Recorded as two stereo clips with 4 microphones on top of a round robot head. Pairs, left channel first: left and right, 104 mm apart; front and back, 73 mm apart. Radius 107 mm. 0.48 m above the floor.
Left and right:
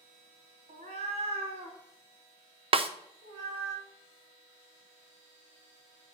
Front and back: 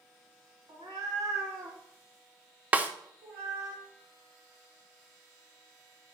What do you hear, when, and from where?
0.7 s a cat meowing: 125° right, 0.6 m; by 3.7 s 130° right, 2.5 m
2.7 s a snare drum: 115° right, 0.5 m